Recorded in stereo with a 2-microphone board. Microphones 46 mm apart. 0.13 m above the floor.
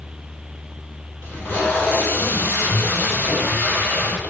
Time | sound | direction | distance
1.2 | tape being pulled | 50° left (ahead or behind) | 4 m